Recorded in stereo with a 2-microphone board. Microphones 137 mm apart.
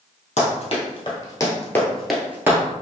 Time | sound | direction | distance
0.4 | running footsteps | 50° left (ahead or behind) | 1.8 m